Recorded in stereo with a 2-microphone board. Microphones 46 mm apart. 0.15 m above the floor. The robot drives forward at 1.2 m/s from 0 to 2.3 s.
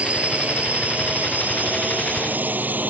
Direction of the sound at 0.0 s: 25° right (ahead or behind).